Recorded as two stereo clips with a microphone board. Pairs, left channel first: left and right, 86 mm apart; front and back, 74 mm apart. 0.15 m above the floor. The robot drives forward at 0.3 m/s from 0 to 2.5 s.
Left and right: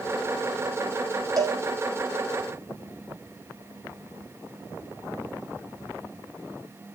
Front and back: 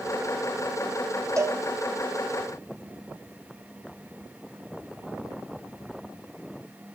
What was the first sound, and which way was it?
A cowbell, 130° right.